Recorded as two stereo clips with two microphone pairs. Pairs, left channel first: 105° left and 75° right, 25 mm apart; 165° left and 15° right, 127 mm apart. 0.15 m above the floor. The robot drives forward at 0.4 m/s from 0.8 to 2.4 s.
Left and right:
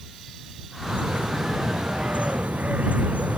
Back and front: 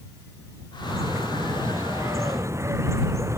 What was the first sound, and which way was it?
A bird, 80° right.